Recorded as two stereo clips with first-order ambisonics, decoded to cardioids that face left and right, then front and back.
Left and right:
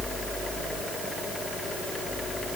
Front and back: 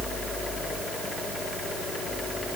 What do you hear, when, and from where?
Only background noise.